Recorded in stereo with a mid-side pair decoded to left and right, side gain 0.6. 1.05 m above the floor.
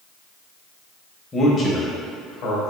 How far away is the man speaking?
About 1.1 m.